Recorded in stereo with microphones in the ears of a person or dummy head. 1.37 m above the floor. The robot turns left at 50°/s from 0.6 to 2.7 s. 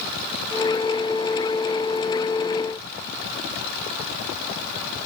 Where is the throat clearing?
No throat clearing in this recording.